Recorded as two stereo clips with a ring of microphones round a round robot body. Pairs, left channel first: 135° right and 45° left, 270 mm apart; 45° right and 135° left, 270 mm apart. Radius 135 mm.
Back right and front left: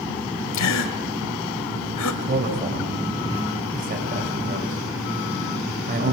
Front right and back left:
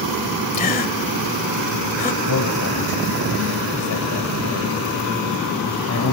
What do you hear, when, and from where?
0.5 s a gasp: 105° right, 2 m
2.2 s a man speaking: 15° right, 6 m